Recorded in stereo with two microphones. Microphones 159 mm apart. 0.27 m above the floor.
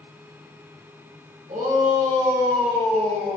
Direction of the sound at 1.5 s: 55° right (ahead or behind).